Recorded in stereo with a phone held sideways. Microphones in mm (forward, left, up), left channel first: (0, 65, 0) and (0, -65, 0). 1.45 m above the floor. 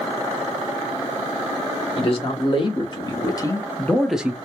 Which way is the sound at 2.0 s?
45° left (ahead or behind).